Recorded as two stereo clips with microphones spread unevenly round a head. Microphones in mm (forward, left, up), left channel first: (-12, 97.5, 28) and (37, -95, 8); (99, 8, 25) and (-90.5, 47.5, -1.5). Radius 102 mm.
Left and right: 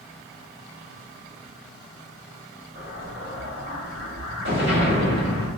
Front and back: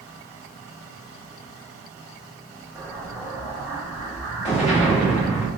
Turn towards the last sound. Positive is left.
turn(degrees=85)